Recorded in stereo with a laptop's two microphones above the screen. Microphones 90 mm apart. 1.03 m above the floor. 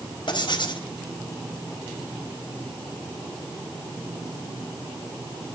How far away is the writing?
About 4.5 m.